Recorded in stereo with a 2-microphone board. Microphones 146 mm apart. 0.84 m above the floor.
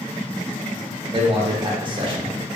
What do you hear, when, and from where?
1.1 s a man speaking: 35° right (ahead or behind), 0.6 m